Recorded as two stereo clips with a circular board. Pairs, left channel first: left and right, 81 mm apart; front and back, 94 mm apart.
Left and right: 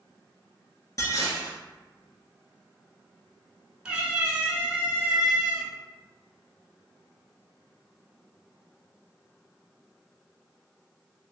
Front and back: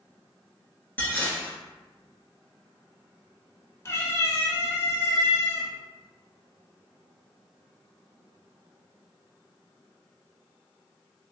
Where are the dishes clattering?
65° left, 1.2 m.